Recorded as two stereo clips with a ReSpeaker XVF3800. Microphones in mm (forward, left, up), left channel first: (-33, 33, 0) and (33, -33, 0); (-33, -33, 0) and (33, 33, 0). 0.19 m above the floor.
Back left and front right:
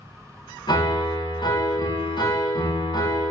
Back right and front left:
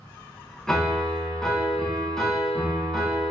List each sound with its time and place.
0.7 s a piano: 140° left, 0.6 m